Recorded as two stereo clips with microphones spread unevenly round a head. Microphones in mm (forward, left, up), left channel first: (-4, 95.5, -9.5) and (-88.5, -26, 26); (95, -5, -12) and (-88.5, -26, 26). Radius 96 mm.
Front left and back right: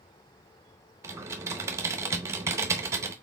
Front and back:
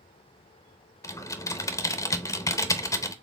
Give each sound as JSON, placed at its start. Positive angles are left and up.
{"t": 1.0, "sound": "typing on a keyboard", "azimuth_deg": -75, "distance_m": 0.6}